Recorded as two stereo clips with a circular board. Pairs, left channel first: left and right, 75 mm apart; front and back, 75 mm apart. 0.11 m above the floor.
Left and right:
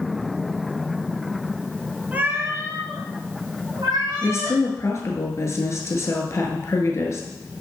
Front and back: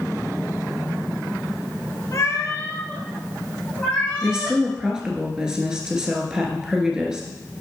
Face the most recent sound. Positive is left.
turn(degrees=105)